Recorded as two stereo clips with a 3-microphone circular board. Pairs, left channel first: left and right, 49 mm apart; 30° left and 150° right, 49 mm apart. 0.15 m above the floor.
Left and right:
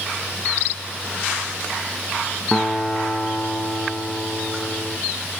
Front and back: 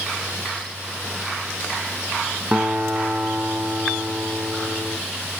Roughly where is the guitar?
Behind.